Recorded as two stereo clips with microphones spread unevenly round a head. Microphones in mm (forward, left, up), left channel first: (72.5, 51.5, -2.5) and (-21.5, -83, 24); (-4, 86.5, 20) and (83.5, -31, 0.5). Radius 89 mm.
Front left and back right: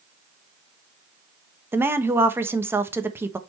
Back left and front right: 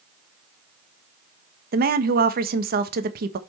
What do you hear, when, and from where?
1.7 s a woman speaking: 45° right, 1.3 m